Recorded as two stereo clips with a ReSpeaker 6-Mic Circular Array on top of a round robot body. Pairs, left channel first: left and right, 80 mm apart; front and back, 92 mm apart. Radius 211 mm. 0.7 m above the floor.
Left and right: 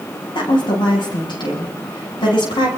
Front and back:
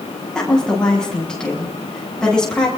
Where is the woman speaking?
80° left, 8 m.